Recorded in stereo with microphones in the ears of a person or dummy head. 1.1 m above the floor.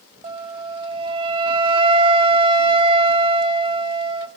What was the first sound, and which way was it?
A flute, 35° right (ahead or behind).